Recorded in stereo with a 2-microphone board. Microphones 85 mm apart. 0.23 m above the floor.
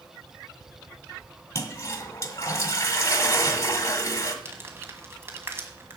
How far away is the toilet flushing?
About 1.3 m.